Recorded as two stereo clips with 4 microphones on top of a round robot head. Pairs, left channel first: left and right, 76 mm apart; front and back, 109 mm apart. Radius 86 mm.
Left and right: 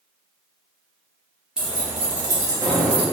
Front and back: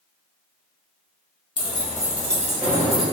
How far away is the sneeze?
No sneeze in this recording.